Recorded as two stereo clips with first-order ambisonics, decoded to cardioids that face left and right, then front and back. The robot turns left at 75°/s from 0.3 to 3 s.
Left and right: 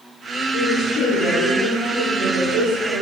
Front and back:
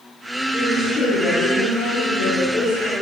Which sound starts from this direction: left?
A woman speaking, at 0.5 s.